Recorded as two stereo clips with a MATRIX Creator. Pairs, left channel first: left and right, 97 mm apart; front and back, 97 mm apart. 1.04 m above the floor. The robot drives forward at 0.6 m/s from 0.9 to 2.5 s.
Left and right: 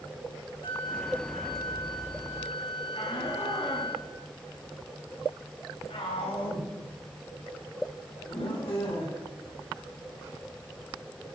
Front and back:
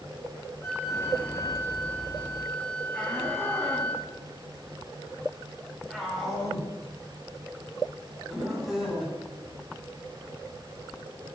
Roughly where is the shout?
Left.